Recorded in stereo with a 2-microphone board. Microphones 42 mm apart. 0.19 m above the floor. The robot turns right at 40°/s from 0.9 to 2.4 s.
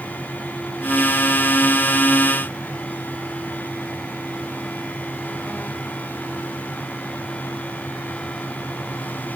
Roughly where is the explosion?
No explosion in this recording.